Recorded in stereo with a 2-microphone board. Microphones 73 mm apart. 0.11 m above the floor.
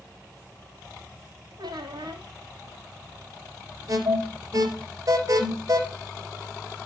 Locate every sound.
1.6 s a squeak: 75° right (ahead or behind), 2.5 m
3.9 s an alarm: 50° right (ahead or behind), 3.5 m